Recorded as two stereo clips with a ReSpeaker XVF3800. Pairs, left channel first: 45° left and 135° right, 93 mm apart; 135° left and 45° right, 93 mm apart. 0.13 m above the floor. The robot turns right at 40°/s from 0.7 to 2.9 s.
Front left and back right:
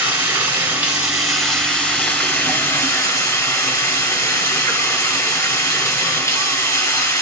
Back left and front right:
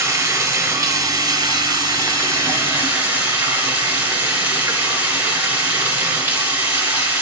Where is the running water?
75° right, 1.6 m; by 7.2 s 15° left, 1.6 m.